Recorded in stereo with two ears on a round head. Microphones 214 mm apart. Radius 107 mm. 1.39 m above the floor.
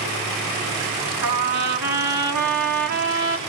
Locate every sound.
1.2 s a trumpet: 80° right, 2.5 m